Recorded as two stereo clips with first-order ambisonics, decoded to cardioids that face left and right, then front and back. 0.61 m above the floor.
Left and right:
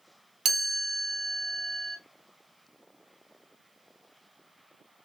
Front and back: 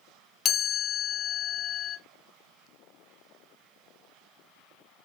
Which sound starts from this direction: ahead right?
A chime, at 0.5 s.